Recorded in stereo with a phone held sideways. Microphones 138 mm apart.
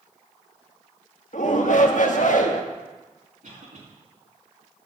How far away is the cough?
About 2 m.